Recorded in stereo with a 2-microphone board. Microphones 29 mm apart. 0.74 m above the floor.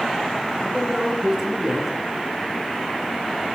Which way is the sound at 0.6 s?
15° right (ahead or behind).